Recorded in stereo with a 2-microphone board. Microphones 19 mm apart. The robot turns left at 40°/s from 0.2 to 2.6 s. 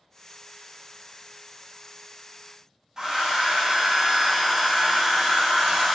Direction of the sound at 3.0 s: 35° right (ahead or behind).